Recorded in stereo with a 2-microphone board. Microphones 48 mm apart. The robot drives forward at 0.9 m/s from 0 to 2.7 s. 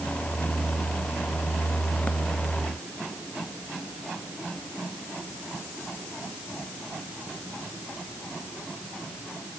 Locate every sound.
Only background noise.